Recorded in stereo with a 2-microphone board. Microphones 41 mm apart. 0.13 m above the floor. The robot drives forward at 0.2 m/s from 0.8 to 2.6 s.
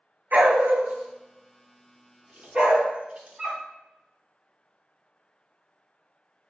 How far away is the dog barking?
About 0.6 m.